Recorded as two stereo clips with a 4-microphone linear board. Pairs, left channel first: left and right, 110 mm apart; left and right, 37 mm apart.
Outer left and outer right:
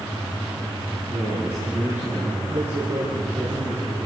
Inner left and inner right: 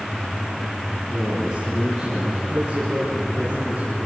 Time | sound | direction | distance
1.1 | a man speaking | 10° right (ahead or behind) | 6.5 m